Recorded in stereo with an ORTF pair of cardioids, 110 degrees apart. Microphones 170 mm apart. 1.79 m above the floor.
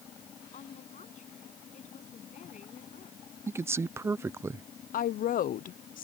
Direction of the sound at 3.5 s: 15° right.